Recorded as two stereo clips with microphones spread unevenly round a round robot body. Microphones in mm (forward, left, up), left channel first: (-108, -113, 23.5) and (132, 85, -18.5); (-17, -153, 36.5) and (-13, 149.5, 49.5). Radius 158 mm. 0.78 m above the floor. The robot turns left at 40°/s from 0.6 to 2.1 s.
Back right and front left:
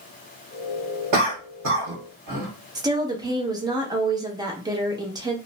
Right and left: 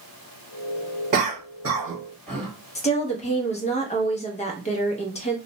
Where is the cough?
45° left, 1.5 m; by 2.5 s 5° left, 1.5 m.